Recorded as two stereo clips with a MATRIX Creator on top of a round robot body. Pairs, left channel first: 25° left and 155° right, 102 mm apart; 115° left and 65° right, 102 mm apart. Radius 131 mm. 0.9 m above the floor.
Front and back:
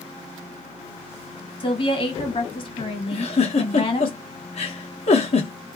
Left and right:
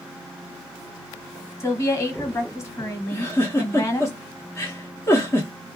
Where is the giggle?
45° left, 0.6 m.